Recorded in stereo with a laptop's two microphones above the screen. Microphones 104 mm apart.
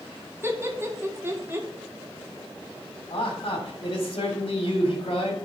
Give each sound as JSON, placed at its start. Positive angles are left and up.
{"t": 0.4, "sound": "laughter", "side_deg": -25, "distance_m": 1.8}
{"t": 3.1, "sound": "a man speaking", "side_deg": 55, "distance_m": 3.0}